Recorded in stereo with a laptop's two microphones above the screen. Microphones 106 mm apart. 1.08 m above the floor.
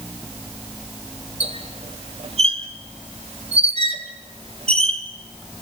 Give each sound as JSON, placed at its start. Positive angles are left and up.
{"t": 1.4, "sound": "a squeak", "side_deg": -75, "distance_m": 3.0}